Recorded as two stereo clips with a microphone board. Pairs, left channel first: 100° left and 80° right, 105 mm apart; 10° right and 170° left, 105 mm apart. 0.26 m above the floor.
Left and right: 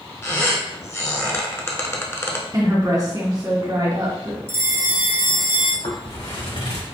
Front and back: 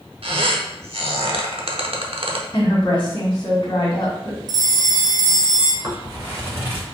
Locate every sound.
0.2 s a squeak: 160° left, 0.7 m
2.5 s a woman speaking: 40° right, 1.7 m
4.5 s a bell: 140° right, 0.7 m
5.8 s footsteps: 105° left, 1.9 m; by 6.8 s 100° left, 2.5 m